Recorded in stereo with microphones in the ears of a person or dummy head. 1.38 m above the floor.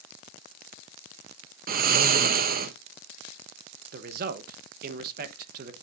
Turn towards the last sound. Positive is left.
turn(degrees=-55)  # may be behind; listen again after turning